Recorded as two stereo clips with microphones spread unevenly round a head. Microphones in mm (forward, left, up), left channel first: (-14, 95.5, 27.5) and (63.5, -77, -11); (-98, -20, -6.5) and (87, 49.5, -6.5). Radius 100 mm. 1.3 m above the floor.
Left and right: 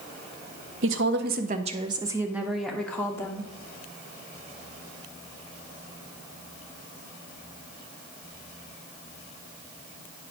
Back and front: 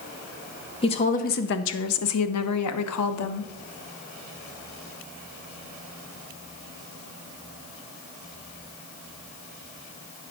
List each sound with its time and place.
0.8 s a woman speaking: 95° right, 0.8 m; by 3.5 s 170° right, 1.4 m